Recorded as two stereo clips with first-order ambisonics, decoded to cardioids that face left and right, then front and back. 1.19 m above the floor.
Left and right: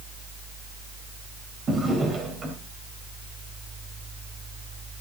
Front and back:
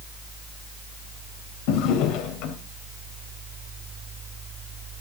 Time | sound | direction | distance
1.7 | a drawer | 25° right | 3 m